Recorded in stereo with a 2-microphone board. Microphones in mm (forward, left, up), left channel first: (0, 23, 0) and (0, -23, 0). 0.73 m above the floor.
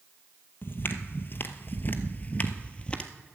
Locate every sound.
0.6 s footsteps: 50° left (ahead or behind), 1.2 m; by 3.1 s 20° left (ahead or behind), 1.2 m